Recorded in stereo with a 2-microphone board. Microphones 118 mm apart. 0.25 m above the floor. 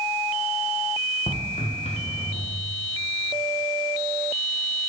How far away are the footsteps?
About 1.9 m.